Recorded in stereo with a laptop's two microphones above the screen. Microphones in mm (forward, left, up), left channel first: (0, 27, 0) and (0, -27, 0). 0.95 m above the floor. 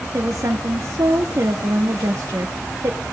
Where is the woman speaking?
65° right (ahead or behind), 1.3 m.